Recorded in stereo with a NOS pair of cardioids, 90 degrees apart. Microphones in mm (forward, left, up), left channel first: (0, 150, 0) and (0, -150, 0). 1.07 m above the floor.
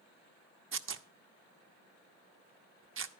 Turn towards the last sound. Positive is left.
turn(degrees=-40)